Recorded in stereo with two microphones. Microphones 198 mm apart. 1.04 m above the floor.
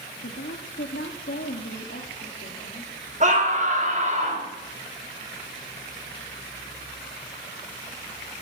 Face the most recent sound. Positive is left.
turn(degrees=-45)  # may be behind; listen again after turning